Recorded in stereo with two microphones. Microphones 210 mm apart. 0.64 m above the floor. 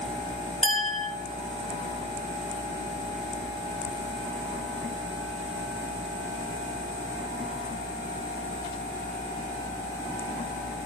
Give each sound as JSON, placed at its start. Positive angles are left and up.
{"t": 0.6, "sound": "a clink", "side_deg": -35, "distance_m": 1.8}